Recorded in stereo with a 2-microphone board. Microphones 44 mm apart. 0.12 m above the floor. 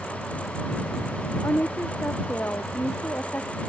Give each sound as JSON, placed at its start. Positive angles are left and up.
{"t": 1.4, "sound": "a woman speaking", "side_deg": 60}